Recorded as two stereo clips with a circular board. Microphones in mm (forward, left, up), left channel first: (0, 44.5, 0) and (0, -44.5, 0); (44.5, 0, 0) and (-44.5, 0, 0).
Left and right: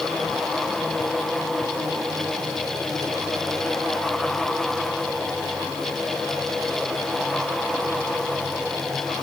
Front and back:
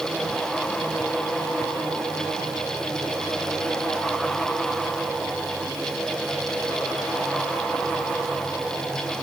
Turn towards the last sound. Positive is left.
No sound to turn to.